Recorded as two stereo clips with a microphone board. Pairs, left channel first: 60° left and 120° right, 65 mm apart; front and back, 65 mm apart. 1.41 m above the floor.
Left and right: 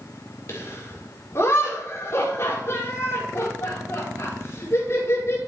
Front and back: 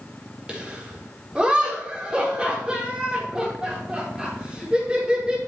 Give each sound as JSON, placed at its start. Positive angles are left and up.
{"t": 0.5, "sound": "laughter", "azimuth_deg": 105, "distance_m": 5.0}